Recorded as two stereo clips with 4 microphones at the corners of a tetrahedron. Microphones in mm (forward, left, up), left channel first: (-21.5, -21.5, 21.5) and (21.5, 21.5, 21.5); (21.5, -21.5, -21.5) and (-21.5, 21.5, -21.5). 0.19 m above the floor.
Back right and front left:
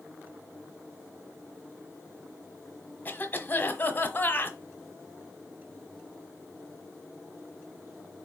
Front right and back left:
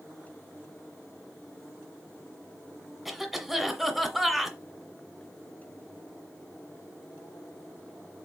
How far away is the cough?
About 1.2 m.